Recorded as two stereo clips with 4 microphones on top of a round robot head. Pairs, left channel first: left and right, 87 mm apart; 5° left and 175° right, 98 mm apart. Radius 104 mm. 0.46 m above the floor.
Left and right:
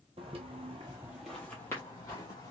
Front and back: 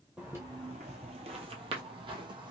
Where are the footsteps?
95° right, 0.7 m; by 2.5 s 150° left, 1.2 m.